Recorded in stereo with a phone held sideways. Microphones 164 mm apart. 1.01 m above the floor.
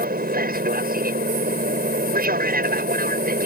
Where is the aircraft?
60° right (ahead or behind).